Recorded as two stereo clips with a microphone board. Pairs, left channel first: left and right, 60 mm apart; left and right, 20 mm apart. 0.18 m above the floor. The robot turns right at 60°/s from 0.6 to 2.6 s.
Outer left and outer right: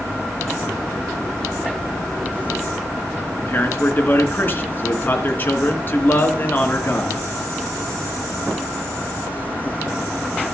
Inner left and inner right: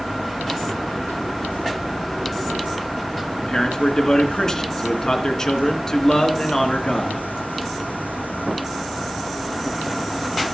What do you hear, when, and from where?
3.4 s a man speaking: 35° left (ahead or behind), 2.5 m